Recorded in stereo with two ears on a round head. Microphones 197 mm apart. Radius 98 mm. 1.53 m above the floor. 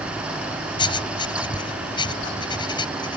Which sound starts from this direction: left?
Writing, at 0.8 s.